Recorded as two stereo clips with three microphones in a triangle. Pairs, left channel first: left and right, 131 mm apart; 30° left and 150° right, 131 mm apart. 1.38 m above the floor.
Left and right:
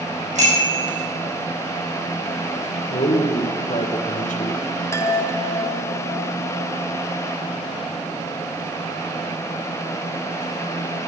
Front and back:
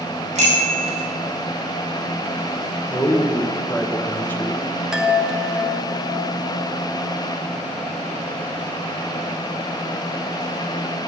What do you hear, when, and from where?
0.3 s a bicycle bell: 115° right, 5 m
2.9 s a man speaking: 105° left, 1.1 m
4.9 s a chime: 130° left, 0.8 m